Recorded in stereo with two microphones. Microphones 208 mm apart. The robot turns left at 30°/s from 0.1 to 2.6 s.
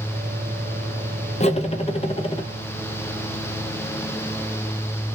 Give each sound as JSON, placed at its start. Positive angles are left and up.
{"t": 1.4, "sound": "cutlery clinking", "azimuth_deg": 80, "distance_m": 0.6}